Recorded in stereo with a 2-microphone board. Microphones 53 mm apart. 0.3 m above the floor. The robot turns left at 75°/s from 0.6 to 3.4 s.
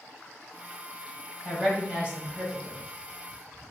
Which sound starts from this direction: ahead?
A woman speaking, at 1.4 s.